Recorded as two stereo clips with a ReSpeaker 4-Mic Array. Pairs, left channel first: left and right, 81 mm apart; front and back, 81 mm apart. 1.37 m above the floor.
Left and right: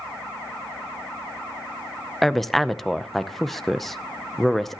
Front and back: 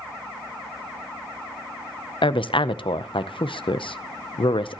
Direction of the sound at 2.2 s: 5° left.